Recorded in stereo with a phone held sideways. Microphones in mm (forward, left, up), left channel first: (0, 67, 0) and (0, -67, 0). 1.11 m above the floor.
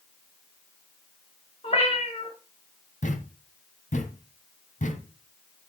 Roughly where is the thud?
Left.